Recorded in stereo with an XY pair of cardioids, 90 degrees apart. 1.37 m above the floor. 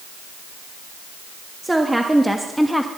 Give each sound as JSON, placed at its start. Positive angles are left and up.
{"t": 1.6, "sound": "a woman speaking", "azimuth_deg": -15, "distance_m": 3.0}